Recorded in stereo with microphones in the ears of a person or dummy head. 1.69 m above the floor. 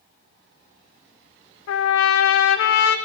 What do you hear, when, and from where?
1.7 s a trumpet: 70° left (ahead or behind), 0.6 m